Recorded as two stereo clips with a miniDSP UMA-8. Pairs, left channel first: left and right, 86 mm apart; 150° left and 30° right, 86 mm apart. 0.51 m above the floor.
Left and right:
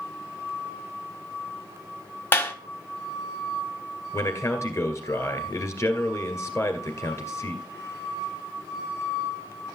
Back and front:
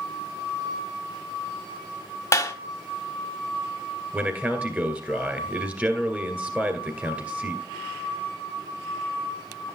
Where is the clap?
135° left, 1.0 m.